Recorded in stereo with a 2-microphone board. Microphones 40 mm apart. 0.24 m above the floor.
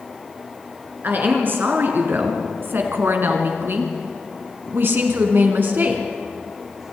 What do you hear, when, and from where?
1.0 s a woman speaking: 50° right (ahead or behind), 4 m